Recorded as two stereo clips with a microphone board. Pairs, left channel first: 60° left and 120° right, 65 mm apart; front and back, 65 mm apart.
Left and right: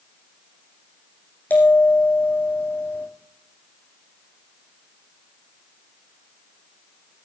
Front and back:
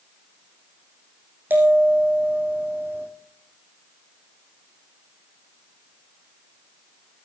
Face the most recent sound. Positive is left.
turn(degrees=120)